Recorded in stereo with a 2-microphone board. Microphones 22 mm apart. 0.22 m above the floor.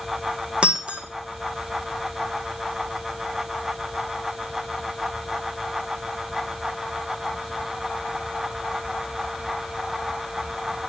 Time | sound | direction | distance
0.6 | breaking glass | 50° right (ahead or behind) | 2.5 m